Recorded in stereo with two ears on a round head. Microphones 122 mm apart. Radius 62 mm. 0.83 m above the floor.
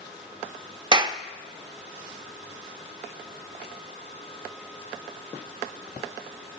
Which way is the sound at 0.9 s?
35° right (ahead or behind).